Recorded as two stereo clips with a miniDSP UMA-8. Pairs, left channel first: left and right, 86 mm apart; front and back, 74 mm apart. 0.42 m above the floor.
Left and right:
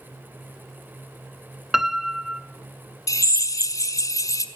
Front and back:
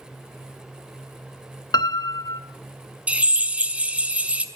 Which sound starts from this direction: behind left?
A drill, at 3.1 s.